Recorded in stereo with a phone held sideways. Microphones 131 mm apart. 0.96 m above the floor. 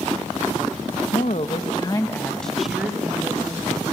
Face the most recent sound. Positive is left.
turn(degrees=-25)  # may be behind; listen again after turning